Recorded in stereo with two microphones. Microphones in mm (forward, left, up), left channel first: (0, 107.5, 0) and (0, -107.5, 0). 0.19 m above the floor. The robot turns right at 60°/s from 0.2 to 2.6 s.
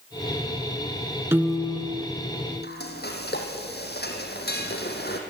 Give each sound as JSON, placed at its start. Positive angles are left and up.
{"t": 1.3, "sound": "a piano", "azimuth_deg": -15, "distance_m": 1.6}
{"t": 2.6, "sound": "frying", "side_deg": 50, "distance_m": 3.0}